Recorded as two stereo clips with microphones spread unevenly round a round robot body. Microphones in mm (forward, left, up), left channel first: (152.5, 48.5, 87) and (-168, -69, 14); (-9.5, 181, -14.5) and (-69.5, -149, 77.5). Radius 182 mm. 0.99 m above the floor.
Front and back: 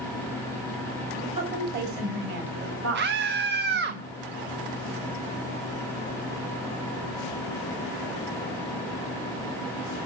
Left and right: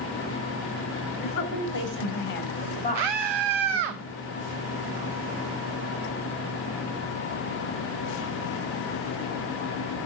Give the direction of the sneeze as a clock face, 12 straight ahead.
I don't hear a sneeze.